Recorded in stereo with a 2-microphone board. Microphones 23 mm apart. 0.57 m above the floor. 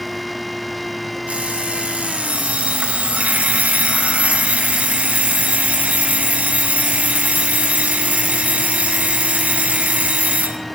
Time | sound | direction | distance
1.3 | an alarm clock | 80° right | 1.9 m